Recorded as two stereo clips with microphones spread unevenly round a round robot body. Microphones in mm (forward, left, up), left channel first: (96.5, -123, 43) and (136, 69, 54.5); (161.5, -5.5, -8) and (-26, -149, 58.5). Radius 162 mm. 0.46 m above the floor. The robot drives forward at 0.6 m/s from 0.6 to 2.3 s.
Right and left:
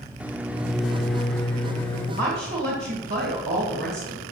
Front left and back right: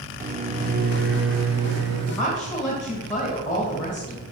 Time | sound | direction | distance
0.2 | a microwave | 160° left | 0.5 m
2.2 | a woman speaking | 115° left | 2 m